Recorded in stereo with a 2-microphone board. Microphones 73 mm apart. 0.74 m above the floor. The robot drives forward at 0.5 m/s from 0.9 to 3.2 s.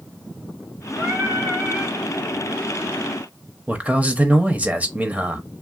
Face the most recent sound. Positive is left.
turn(degrees=-20)  # may be behind; listen again after turning